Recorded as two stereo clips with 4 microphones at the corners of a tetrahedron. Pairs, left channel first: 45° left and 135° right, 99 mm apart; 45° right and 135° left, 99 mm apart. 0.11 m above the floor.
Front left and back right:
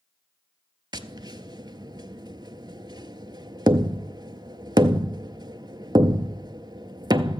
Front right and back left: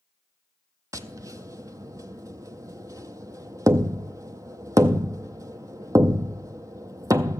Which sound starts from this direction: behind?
Tapping, at 0.9 s.